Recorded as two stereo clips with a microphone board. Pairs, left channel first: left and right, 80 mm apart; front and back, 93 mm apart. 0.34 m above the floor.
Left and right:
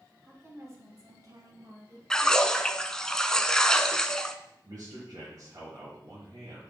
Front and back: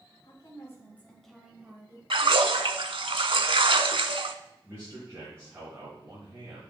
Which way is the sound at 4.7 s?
120° right.